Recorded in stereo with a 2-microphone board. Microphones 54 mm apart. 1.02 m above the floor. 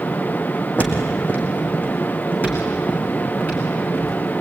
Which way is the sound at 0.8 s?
30° left (ahead or behind).